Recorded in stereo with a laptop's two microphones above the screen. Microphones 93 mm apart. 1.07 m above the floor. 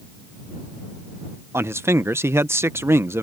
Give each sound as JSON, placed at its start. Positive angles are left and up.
{"t": 1.5, "sound": "a man speaking", "side_deg": -30}